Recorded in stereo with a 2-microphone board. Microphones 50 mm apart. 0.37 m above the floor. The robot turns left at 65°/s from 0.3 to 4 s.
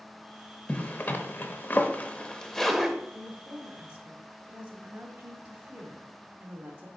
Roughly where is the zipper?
Left.